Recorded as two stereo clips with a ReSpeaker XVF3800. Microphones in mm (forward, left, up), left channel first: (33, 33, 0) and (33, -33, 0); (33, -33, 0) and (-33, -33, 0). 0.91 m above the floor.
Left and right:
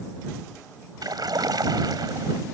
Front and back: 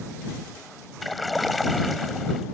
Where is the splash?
90° right.